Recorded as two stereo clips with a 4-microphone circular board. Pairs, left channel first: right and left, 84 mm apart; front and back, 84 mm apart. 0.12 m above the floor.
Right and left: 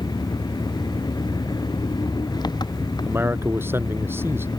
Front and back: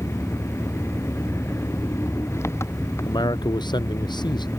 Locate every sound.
0.0 s an engine running: 55° right
3.0 s a man speaking: 30° left